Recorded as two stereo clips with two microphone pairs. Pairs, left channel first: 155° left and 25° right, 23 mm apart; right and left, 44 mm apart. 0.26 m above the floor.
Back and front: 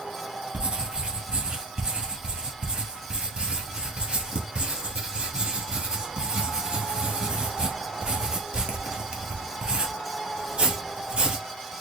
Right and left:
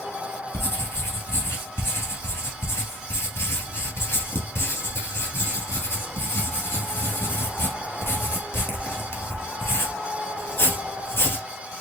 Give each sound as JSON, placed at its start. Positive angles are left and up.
{"t": 0.5, "sound": "writing", "azimuth_deg": -70, "distance_m": 1.8}